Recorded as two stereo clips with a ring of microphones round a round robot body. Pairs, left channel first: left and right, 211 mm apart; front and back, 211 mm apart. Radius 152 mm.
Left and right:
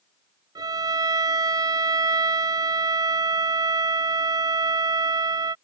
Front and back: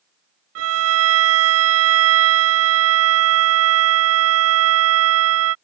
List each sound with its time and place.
0.6 s a violin: 170° right